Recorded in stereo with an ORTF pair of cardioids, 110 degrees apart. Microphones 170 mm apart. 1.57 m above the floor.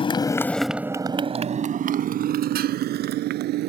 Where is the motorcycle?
35° left; by 3.7 s 75° right.